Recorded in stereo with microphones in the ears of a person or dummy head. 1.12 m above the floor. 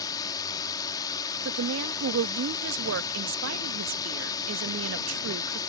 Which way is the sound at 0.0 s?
20° left (ahead or behind).